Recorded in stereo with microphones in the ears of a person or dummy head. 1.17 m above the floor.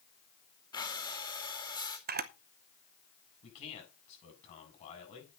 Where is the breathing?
20° left (ahead or behind), 2 m.